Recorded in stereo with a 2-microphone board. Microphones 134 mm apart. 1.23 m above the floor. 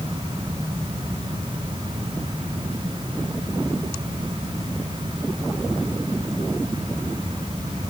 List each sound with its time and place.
Only background noise.